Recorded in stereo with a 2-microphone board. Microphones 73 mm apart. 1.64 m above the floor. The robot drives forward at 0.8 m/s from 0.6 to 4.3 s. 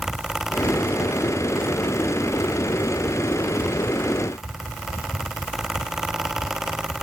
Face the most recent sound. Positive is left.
No sound to turn to.